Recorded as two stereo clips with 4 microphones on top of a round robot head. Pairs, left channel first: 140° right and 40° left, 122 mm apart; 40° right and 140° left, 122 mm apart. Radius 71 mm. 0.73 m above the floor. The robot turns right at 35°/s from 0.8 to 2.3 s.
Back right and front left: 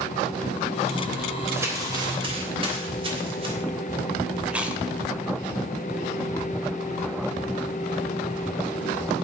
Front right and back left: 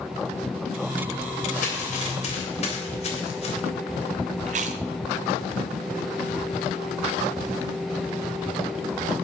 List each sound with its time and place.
1.5 s crumpling: 35° right, 3 m; by 3.5 s 5° right, 3 m
4.5 s chewing: 120° left, 1.1 m